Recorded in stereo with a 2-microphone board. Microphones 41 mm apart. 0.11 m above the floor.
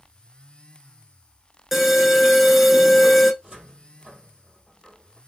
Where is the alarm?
5° right (ahead or behind), 0.8 m.